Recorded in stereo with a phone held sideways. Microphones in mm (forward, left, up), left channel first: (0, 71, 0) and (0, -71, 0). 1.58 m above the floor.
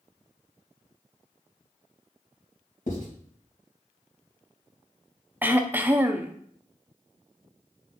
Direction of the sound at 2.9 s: 60° left (ahead or behind).